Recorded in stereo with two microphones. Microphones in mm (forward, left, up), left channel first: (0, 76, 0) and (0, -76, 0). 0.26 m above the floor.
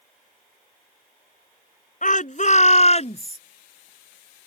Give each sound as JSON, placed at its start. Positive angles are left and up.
{"t": 2.0, "sound": "a shout", "side_deg": 60}